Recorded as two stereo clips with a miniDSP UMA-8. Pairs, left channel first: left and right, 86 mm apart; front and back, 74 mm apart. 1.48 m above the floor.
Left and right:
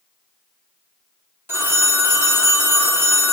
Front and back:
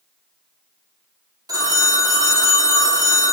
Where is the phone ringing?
155° right, 2.0 m.